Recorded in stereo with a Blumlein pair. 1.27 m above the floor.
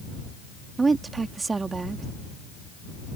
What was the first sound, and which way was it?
A woman speaking, 15° right.